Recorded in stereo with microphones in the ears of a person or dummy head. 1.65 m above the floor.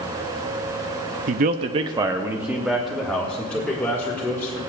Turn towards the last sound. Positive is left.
turn(degrees=10)  # may be behind; listen again after turning